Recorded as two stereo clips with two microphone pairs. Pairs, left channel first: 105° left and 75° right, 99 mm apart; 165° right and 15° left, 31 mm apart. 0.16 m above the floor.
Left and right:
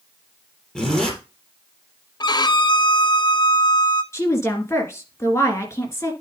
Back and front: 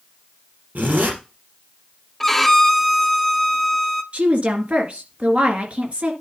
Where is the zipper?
25° left, 3.5 m.